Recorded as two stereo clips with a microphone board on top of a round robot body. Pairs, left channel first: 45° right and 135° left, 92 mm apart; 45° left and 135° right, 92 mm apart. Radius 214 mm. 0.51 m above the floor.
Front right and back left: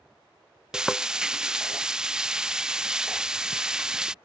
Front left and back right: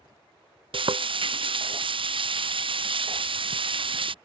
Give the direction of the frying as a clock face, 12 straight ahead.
5 o'clock.